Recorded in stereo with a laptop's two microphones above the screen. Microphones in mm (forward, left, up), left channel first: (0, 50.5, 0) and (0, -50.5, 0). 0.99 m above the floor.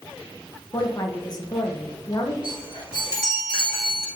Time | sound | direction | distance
0.7 | a woman speaking | 40° left (ahead or behind) | 0.9 m
2.4 | a chime | 45° left (ahead or behind) | 2.5 m